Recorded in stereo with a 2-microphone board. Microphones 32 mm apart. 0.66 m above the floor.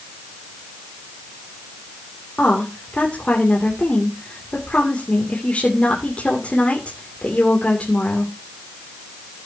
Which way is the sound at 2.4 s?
40° left (ahead or behind).